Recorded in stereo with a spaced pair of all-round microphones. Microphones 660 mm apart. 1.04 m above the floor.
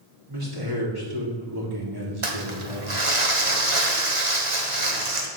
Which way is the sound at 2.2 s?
50° right (ahead or behind).